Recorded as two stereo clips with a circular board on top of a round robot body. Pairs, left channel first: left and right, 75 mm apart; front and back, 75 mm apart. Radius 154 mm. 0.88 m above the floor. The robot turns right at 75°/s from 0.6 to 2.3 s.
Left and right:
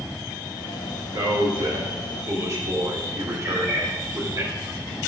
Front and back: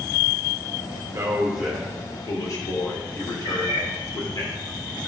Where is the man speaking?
130° right, 3.5 m; by 4.4 s 45° right, 3.5 m.